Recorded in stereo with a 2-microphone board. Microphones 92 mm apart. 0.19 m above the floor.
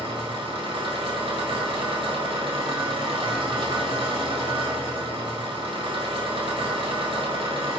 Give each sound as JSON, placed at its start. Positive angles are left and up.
{"t": 0.0, "sound": "an engine running", "side_deg": -65, "distance_m": 0.7}